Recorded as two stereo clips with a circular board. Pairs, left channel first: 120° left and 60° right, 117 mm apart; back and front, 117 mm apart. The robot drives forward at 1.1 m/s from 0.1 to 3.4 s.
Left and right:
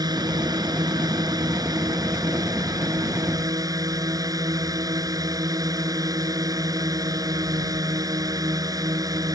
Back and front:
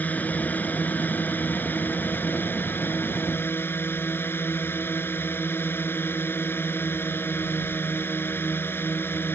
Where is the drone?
105° right; by 9.4 s 110° right.